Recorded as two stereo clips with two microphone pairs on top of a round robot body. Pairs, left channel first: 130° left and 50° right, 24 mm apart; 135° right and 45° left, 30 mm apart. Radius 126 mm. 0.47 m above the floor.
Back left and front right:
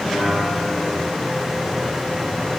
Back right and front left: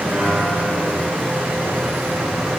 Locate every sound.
0.1 s a piano: 100° left, 7 m